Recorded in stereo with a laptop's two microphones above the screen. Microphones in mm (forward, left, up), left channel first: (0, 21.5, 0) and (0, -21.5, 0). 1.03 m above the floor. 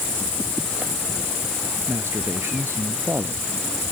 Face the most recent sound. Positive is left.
turn(degrees=-75)  # may be behind; listen again after turning